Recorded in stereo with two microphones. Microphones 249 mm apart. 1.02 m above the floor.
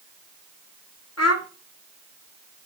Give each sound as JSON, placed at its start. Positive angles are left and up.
{"t": 1.2, "sound": "a child speaking", "side_deg": 80, "distance_m": 1.4}